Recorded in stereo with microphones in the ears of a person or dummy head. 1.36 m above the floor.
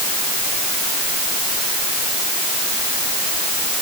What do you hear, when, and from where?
Only background noise.